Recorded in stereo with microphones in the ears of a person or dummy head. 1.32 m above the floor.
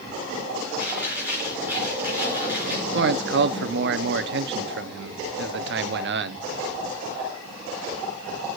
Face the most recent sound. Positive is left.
turn(degrees=-55)  # may be behind; listen again after turning